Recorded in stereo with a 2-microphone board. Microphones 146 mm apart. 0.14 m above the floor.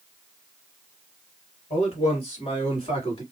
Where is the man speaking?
45° left (ahead or behind), 2 m; by 3.2 s 35° left (ahead or behind), 1.6 m.